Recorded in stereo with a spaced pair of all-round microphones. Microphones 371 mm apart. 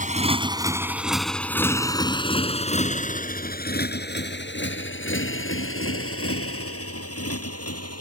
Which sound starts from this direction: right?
A motorcycle, at 0.0 s.